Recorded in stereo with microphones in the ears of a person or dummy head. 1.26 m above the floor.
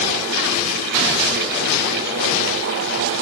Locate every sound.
Only background noise.